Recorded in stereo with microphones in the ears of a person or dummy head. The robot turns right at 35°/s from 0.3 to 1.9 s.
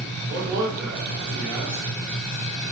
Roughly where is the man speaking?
Ahead right.